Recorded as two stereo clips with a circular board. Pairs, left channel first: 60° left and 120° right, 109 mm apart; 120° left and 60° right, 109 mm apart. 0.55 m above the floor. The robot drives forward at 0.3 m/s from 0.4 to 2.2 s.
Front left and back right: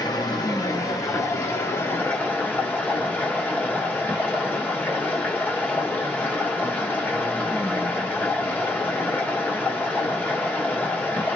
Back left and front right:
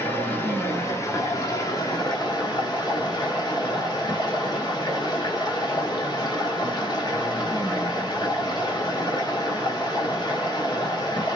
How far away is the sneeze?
I don't hear a sneeze.